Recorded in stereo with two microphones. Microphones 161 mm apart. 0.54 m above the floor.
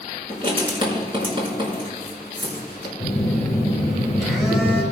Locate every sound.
0.3 s writing: 35° right (ahead or behind), 4.5 m
3.0 s a phone buzzing: 5° right (ahead or behind), 5 m